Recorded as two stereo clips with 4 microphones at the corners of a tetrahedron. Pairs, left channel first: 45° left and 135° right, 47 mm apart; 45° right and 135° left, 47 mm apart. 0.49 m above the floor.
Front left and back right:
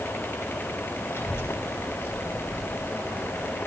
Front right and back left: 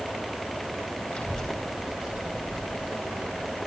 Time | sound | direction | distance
1.1 | a child speaking | 20° left | 1.9 m